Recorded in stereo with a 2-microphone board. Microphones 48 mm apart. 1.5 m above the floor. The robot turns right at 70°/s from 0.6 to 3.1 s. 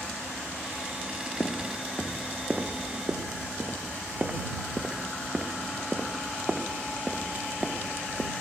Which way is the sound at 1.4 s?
45° left (ahead or behind).